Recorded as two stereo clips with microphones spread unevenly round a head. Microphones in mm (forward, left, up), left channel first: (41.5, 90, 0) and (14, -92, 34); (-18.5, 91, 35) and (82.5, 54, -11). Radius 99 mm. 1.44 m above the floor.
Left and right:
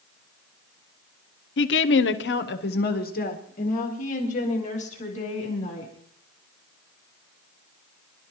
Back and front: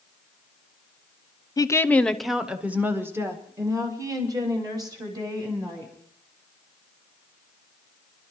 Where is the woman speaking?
95° left, 0.9 m; by 5.9 s 30° left, 4 m.